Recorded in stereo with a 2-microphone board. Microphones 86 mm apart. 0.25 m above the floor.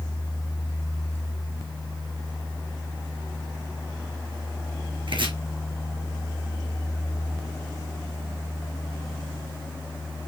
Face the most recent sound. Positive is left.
turn(degrees=-75)  # may be behind; listen again after turning